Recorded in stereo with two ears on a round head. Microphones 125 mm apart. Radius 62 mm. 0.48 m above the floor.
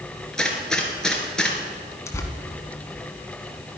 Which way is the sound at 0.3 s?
5° left (ahead or behind).